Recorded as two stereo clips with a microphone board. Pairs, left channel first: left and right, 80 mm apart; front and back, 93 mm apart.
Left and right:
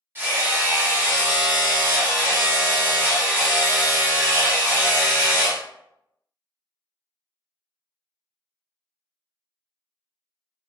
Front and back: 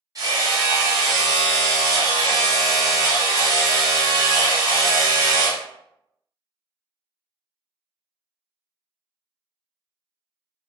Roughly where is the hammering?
Behind right.